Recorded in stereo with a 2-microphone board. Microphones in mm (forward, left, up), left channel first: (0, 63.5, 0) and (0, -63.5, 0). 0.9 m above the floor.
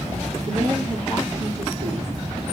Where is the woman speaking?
75° right (ahead or behind), 2.5 m.